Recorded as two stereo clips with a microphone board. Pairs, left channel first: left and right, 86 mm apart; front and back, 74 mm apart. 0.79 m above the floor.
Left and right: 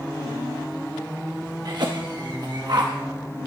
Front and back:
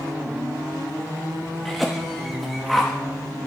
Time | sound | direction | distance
1.6 | a cough | 90° right | 0.8 m